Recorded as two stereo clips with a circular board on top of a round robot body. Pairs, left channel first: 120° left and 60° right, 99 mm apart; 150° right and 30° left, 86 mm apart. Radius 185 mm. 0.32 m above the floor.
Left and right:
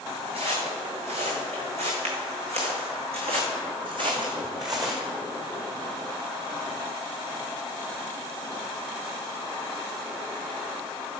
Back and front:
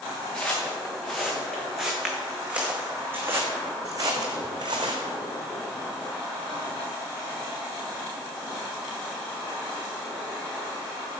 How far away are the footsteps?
About 2.5 m.